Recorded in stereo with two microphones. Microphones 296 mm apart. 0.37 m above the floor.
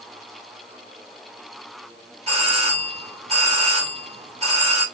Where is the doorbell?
20° right (ahead or behind), 1.5 m.